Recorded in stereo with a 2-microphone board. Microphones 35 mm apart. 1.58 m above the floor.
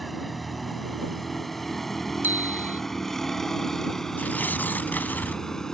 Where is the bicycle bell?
70° right (ahead or behind).